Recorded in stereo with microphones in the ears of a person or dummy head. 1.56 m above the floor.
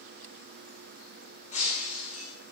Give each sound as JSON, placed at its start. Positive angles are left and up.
{"t": 1.5, "sound": "breaking glass", "side_deg": 45, "distance_m": 7.5}